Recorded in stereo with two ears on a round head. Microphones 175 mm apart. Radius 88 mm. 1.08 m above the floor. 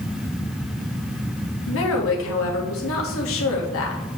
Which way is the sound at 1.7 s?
70° left (ahead or behind).